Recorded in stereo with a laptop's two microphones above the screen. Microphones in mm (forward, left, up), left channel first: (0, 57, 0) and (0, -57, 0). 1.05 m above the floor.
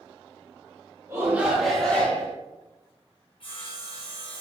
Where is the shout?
25° right (ahead or behind), 1.1 m; by 2.3 s 20° left (ahead or behind), 1.6 m.